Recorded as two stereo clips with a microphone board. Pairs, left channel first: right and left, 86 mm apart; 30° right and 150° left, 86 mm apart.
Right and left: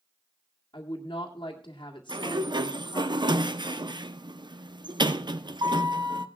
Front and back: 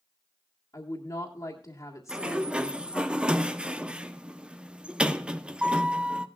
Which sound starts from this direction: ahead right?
A woman speaking, at 0.7 s.